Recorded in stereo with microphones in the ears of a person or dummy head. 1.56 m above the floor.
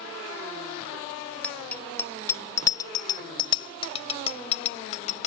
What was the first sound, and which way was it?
A bicycle bell, 5° left (ahead or behind).